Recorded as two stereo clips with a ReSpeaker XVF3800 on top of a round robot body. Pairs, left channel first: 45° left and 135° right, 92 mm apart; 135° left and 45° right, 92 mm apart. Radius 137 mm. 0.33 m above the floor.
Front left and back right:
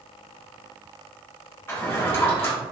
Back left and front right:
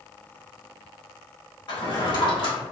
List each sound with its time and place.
1.7 s a drawer: 105° left, 1.3 m